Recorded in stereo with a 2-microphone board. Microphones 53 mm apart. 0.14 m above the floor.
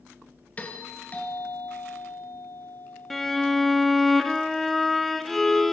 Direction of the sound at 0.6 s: 25° left (ahead or behind).